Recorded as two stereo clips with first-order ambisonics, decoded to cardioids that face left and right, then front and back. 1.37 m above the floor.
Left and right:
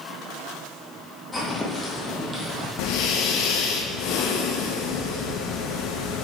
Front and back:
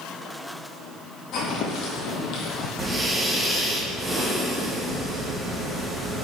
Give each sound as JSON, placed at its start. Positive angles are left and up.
{"t": 1.3, "sound": "footsteps", "azimuth_deg": 15, "distance_m": 2.0}
{"t": 2.8, "sound": "breathing", "azimuth_deg": 100, "distance_m": 1.2}